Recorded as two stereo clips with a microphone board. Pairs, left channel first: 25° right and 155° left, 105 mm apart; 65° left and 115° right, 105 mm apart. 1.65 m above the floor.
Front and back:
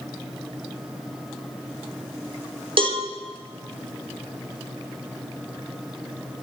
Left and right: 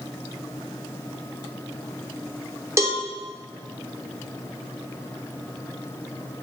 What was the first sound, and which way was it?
A cowbell, 175° right.